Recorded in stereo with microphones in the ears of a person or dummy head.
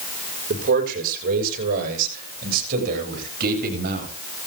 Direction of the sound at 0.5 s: 55° right (ahead or behind).